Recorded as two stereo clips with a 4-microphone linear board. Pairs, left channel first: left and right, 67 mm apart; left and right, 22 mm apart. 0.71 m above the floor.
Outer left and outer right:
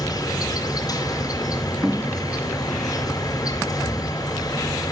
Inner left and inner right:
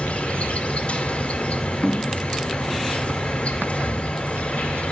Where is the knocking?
15° right (ahead or behind), 0.8 m.